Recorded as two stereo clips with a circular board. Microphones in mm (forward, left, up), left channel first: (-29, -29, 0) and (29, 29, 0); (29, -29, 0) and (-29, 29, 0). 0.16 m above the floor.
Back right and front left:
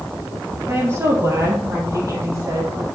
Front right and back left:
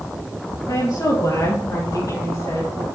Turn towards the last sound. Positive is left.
turn(degrees=0)